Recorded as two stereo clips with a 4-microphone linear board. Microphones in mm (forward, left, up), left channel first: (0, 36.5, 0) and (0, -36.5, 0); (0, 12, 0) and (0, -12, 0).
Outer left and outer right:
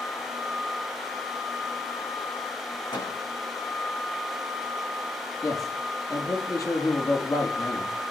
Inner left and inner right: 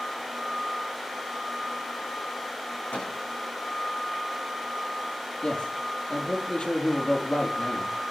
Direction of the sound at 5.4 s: 50° left (ahead or behind).